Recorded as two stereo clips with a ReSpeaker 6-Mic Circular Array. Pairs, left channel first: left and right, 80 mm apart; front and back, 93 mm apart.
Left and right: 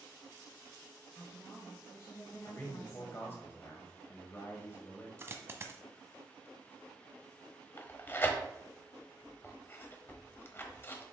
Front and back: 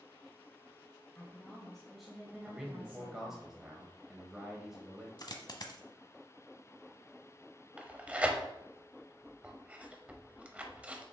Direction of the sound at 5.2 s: 35° right.